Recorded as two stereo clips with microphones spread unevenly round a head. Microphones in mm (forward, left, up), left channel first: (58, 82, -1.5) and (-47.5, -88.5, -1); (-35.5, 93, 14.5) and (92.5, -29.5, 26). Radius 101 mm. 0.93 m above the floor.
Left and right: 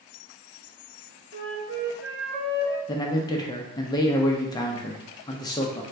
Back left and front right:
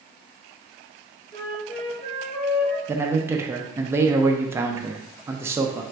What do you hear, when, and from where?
1.3 s a flute: 155° right, 1.1 m
2.9 s a man speaking: 20° left, 0.5 m